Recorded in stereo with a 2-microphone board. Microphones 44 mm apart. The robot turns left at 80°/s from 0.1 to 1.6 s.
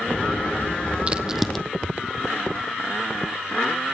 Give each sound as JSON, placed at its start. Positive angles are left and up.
{"t": 1.1, "sound": "a crack", "side_deg": -30, "distance_m": 0.6}